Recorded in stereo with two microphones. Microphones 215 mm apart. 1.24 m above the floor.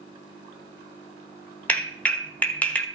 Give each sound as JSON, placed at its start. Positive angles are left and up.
{"t": 1.7, "sound": "a clap", "side_deg": 5, "distance_m": 1.2}